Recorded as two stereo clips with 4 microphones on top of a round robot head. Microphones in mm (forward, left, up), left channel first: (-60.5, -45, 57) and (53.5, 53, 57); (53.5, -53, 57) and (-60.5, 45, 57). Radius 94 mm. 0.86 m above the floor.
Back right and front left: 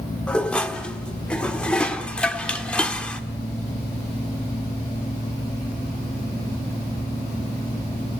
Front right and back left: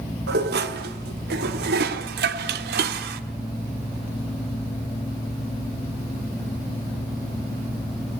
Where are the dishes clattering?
135° left, 1.7 m.